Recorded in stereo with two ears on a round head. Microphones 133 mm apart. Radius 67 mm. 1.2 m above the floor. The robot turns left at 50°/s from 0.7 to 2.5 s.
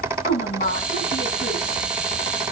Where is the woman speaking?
125° left, 8 m; by 1.8 s 75° left, 8 m.